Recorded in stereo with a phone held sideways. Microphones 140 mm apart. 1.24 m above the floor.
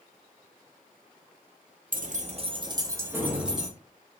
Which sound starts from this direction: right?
Keys jangling, at 1.9 s.